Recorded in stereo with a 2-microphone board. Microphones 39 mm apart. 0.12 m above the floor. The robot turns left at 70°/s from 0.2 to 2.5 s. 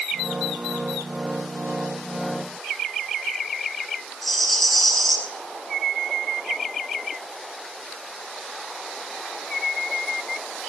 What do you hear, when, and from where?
4.2 s a rattle: centre (ahead or behind), 3.5 m